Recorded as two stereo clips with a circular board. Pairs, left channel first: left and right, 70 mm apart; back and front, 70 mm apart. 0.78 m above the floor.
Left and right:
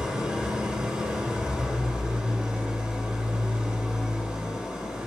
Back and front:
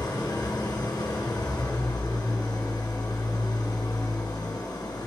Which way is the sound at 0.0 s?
170° right.